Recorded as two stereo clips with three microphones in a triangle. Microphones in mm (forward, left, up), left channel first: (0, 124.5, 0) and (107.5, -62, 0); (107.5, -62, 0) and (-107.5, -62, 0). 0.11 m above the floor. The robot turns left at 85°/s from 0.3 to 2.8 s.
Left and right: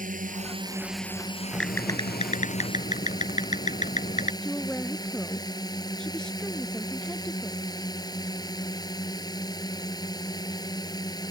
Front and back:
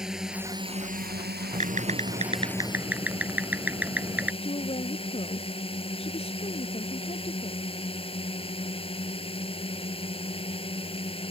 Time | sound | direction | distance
0.0 | a drone | 95° right | ?
1.5 | typing on a keyboard | 150° right | ?
4.4 | a woman speaking | 35° left | ?